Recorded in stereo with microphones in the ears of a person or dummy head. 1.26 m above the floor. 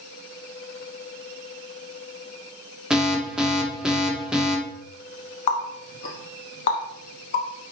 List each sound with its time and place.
2.9 s an alarm: 5° right (ahead or behind), 0.9 m
5.5 s a running tap: 45° left (ahead or behind), 0.9 m